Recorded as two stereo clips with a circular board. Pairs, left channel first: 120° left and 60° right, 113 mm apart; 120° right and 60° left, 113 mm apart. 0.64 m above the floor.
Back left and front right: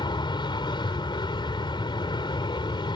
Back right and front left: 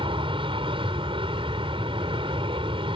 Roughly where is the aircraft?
Left.